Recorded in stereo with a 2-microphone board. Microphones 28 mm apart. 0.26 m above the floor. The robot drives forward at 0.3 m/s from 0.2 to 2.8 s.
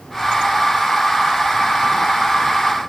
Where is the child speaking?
I don't hear a child speaking.